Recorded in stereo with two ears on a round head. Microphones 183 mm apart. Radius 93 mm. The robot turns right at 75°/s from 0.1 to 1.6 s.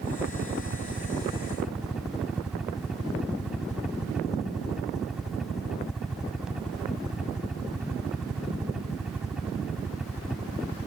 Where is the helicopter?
115° right; by 10.9 s 5° right.